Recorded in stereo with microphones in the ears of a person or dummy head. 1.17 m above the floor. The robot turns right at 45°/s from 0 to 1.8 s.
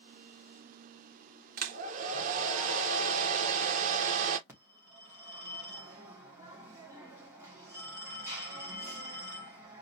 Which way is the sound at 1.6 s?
50° right (ahead or behind).